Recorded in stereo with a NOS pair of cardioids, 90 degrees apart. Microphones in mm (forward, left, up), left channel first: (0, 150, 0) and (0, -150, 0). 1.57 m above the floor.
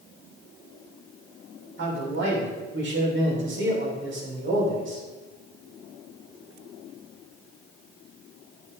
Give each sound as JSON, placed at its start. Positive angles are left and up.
{"t": 1.8, "sound": "a man speaking", "azimuth_deg": -40, "distance_m": 3.0}